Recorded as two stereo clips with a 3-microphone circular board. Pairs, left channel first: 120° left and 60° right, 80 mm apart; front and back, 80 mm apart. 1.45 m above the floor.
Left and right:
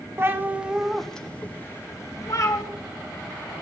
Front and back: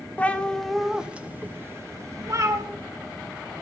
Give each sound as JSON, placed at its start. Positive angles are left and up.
{"t": 0.2, "sound": "a cat meowing", "azimuth_deg": -50, "distance_m": 0.8}